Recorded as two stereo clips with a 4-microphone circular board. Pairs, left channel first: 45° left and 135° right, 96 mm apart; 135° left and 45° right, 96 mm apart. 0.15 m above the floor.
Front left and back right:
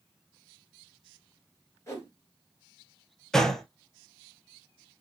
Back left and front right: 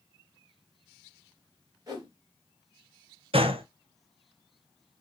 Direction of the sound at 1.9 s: 5° right.